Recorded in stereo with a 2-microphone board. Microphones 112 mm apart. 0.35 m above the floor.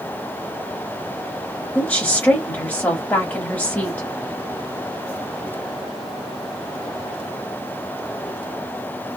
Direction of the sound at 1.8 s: 15° left (ahead or behind).